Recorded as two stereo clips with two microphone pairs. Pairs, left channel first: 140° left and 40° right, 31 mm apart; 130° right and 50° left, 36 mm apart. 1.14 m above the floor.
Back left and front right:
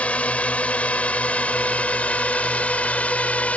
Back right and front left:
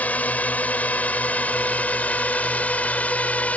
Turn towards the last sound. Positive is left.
turn(degrees=-175)